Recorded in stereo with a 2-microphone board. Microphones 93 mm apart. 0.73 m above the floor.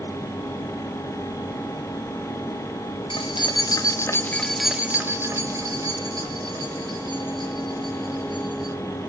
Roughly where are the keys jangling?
Left.